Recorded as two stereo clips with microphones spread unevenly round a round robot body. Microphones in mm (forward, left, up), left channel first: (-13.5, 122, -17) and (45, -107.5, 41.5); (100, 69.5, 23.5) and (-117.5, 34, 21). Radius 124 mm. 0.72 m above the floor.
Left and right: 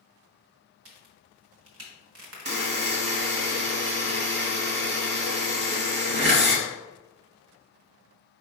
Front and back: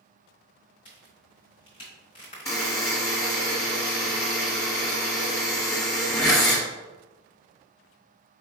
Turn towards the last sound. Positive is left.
turn(degrees=-65)